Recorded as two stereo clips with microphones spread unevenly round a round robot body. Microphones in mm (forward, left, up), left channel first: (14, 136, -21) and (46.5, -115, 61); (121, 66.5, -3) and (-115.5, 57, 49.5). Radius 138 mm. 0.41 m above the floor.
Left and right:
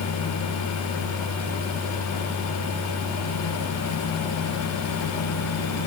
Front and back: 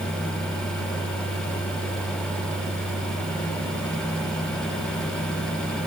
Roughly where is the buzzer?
No buzzer in this recording.